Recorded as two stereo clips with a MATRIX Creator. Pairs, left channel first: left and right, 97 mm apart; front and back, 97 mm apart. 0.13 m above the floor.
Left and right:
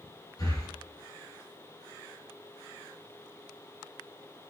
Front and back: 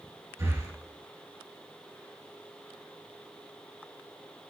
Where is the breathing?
125° left, 3 m.